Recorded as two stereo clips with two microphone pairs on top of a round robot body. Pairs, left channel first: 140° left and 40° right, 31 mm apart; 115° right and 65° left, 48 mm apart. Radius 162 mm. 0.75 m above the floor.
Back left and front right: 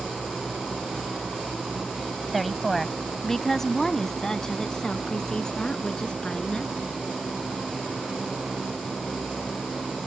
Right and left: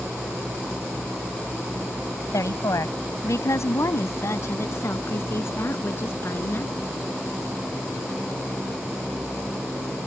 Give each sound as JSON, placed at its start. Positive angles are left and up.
{"t": 2.3, "sound": "a woman speaking", "azimuth_deg": -130}